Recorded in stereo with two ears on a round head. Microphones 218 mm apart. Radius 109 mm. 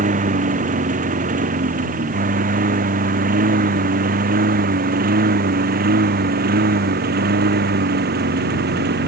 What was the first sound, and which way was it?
A lawn mower, 35° right (ahead or behind).